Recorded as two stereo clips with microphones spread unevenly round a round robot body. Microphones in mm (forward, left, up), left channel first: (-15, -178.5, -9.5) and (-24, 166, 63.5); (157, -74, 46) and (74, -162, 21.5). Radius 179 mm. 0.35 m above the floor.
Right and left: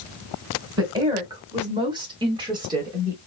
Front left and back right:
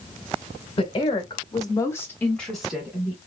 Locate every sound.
0.8 s a woman speaking: 5° left, 1.3 m; by 3.2 s 175° right, 1.1 m